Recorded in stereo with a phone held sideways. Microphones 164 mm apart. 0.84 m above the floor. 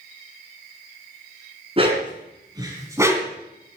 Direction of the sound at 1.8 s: 35° right (ahead or behind).